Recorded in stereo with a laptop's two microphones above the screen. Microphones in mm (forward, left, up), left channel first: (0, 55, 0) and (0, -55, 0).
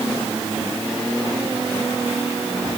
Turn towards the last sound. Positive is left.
No sound to turn to.